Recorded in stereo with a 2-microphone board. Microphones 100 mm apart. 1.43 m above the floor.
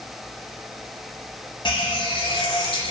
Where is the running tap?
50° left (ahead or behind), 0.6 m.